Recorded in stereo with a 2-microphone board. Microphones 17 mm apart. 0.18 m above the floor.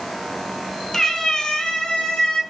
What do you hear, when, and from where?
0.9 s a cat meowing: 25° left (ahead or behind), 0.8 m; by 2.4 s 45° left (ahead or behind), 0.9 m